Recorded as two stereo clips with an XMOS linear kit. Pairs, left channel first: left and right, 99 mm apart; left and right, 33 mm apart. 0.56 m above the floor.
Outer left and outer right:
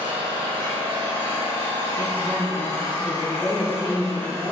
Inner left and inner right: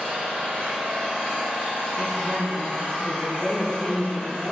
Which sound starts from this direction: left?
A woman speaking, at 1.9 s.